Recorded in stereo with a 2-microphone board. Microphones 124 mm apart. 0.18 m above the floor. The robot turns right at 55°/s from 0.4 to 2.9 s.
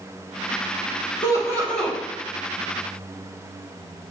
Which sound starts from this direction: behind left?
Laughter, at 1.2 s.